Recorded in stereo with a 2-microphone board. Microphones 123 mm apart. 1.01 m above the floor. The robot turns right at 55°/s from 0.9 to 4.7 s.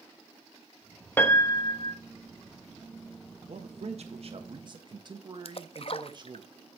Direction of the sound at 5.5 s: 55° left (ahead or behind).